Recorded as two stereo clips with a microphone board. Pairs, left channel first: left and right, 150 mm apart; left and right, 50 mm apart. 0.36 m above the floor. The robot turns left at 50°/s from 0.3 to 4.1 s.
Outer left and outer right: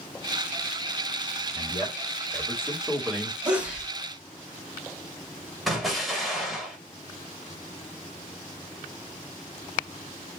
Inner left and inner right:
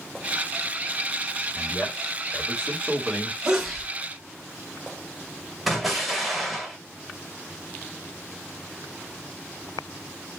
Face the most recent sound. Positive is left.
turn(degrees=0)  # may be behind; listen again after turning